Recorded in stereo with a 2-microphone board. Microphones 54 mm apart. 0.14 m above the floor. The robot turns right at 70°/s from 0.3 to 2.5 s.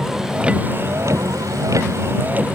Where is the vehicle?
10° right (ahead or behind); by 2.6 s 25° right (ahead or behind).